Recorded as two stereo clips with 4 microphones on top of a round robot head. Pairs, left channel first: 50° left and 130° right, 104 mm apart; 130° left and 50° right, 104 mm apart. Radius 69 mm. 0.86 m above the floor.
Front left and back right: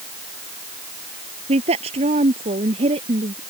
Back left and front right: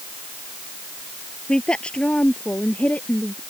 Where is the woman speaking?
150° right; by 3.4 s 155° right.